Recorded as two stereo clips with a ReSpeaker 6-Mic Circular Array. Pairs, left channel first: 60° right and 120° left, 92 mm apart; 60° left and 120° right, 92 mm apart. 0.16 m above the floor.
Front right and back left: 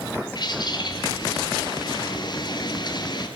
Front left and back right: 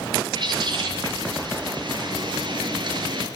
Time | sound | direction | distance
0.3 | a bird | 90° right | 4 m